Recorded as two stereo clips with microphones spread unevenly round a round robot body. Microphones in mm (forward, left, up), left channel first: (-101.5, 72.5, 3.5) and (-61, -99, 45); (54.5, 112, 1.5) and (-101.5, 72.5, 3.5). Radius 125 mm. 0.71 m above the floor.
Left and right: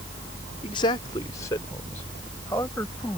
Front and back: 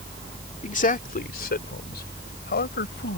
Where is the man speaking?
50° left; by 3.2 s 20° left.